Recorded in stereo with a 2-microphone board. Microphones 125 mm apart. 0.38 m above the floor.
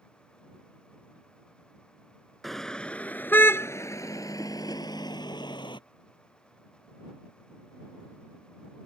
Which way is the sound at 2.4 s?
Centre (ahead or behind).